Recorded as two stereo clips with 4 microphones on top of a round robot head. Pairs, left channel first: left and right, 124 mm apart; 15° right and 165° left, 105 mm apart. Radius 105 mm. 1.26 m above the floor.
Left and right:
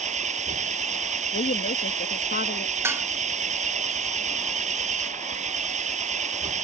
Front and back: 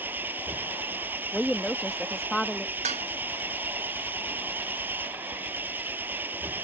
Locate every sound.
0.0 s an engine running: 115° right
1.3 s a woman speaking: 75° left
2.8 s dishes clattering: 160° right